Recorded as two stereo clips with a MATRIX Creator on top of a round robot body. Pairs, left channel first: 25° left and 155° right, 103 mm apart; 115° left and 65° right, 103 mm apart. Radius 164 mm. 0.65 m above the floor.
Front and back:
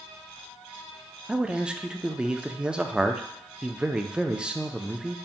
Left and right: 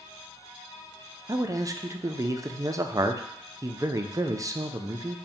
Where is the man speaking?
80° right, 0.5 m.